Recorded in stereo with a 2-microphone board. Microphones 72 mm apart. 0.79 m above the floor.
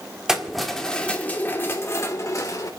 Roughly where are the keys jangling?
Centre.